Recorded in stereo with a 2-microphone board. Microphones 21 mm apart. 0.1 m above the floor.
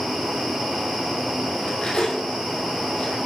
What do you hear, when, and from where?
1.6 s cutlery clinking: 40° left (ahead or behind), 1.9 m